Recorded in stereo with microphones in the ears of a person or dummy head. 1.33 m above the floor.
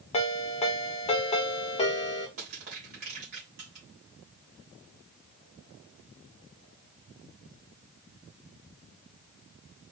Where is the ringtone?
30° left (ahead or behind), 1.5 m.